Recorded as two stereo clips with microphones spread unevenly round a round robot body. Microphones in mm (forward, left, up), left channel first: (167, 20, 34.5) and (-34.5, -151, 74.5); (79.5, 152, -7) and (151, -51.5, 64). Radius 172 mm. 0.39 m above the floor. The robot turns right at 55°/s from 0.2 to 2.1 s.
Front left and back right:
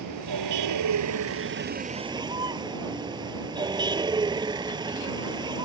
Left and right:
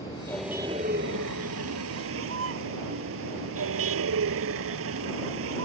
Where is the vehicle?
170° right; by 5.7 s 65° right.